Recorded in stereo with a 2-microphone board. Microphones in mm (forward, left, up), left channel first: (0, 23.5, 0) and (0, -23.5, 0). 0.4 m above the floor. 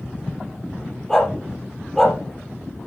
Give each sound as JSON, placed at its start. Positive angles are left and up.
{"t": 1.1, "sound": "a dog barking", "side_deg": 10, "distance_m": 3.5}